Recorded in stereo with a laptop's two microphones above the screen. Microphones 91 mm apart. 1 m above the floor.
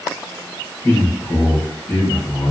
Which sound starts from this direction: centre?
A man speaking, at 0.8 s.